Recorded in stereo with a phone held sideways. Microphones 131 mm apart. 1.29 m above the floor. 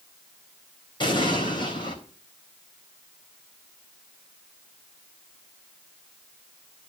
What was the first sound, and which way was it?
An explosion, 40° left (ahead or behind).